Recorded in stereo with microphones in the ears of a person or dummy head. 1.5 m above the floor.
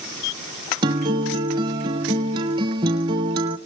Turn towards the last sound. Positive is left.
turn(degrees=-15)  # may be behind; listen again after turning